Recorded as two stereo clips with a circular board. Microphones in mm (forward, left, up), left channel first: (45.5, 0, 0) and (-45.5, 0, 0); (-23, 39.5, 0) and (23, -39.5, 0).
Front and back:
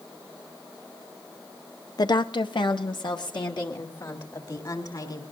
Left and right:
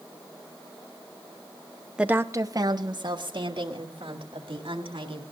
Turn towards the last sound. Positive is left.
turn(degrees=-40)